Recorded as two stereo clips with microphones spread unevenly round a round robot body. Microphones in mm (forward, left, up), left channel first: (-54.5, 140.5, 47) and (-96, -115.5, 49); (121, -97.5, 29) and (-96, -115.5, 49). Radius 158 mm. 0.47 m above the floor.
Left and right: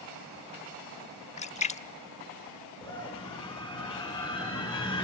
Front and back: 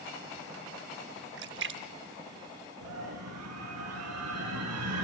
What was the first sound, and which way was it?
A splash, 145° left.